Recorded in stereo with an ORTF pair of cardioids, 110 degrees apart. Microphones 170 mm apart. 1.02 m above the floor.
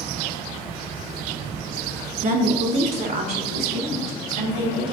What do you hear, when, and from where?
2.2 s a woman speaking: 50° right, 2 m; by 4.9 s 70° right, 5 m